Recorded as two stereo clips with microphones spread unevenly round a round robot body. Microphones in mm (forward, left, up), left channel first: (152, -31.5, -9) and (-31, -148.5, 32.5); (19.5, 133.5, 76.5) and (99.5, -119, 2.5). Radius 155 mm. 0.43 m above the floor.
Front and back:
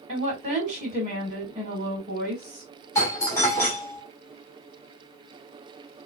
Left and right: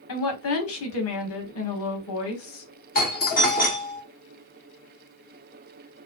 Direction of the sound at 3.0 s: 60° left.